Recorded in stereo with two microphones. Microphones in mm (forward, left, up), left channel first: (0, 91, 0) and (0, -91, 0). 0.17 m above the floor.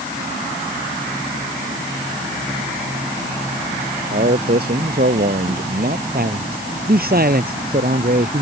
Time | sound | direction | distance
4.1 | a man speaking | 60° right (ahead or behind) | ?
6.1 | a man speaking | 55° right (ahead or behind) | ?